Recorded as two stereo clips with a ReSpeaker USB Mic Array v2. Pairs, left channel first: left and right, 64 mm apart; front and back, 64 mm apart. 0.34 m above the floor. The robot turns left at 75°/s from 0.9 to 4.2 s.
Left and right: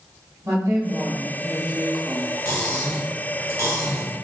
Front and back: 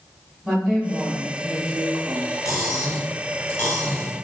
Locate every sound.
0.4 s a woman speaking: 105° right, 1.5 m; by 2.4 s 145° left, 1.5 m
2.5 s cutlery clinking: 35° left, 1.6 m; by 4.2 s 90° right, 1.6 m